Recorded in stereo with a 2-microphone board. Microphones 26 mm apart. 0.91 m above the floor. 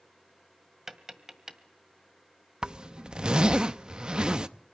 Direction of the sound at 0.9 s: 15° right (ahead or behind).